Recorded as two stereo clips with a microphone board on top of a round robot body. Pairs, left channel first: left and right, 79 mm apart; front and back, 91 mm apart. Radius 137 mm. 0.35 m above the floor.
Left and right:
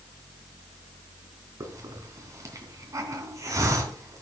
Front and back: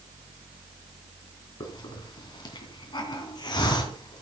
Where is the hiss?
40° right, 3 m.